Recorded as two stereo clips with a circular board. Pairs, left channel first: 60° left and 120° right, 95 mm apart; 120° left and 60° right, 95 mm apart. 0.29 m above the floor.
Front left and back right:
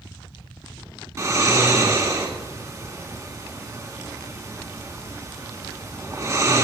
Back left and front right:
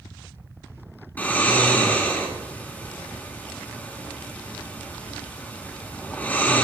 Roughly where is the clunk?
I don't hear a clunk.